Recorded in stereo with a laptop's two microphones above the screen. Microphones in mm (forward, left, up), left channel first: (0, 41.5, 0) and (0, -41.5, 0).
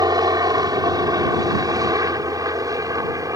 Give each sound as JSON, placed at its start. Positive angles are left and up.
{"t": 0.0, "sound": "a helicopter", "side_deg": -50}